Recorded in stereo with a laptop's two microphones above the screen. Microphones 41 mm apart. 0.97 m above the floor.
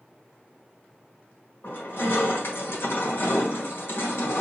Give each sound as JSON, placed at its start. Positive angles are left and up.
{"t": 1.6, "sound": "crushing", "side_deg": 70, "distance_m": 1.5}